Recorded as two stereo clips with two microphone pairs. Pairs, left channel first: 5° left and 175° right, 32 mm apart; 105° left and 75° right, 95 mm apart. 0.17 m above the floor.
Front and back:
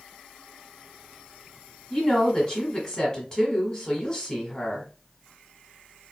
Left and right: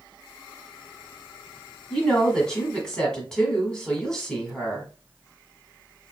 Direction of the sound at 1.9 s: 40° left.